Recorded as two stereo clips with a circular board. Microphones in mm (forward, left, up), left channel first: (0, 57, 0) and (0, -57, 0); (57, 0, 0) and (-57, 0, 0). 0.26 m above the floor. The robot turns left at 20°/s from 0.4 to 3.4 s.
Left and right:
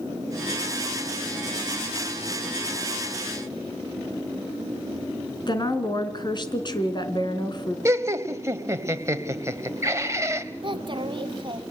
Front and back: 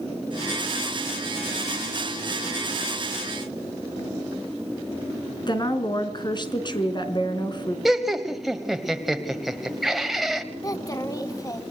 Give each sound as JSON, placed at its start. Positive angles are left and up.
{"t": 5.5, "sound": "a woman speaking", "azimuth_deg": 45, "distance_m": 3.0}
{"t": 7.8, "sound": "laughter", "azimuth_deg": -95, "distance_m": 1.3}
{"t": 10.6, "sound": "a child speaking", "azimuth_deg": -55, "distance_m": 1.8}